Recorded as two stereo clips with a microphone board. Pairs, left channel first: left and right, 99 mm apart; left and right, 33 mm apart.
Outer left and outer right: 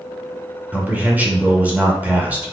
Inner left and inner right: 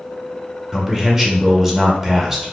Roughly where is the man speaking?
Centre.